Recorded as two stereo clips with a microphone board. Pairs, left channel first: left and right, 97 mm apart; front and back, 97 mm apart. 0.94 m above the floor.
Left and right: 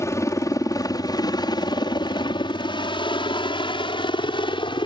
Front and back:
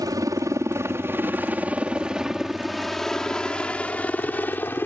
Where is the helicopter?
140° left; by 4.9 s 65° left.